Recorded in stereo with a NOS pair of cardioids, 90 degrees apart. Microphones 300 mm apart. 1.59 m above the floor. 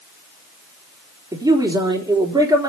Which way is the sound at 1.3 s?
15° right.